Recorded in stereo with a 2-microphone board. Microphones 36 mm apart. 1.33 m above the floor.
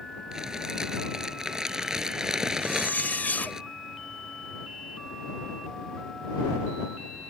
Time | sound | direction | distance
0.3 | crumpling | 15° right (ahead or behind) | ?
2.6 | a zipper | 50° left (ahead or behind) | ?